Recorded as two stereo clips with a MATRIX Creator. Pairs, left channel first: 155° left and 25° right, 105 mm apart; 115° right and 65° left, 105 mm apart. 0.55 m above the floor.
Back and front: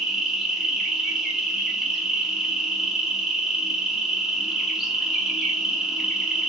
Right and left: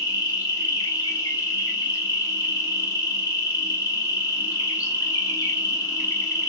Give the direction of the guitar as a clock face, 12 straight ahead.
No guitar in this recording.